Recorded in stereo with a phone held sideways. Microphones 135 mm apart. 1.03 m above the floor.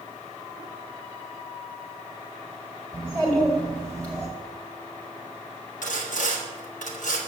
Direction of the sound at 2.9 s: 10° left (ahead or behind).